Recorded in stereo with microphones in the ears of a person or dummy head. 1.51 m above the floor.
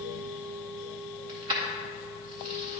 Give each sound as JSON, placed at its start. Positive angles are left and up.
{"t": 1.3, "sound": "keys jangling", "side_deg": -20, "distance_m": 0.5}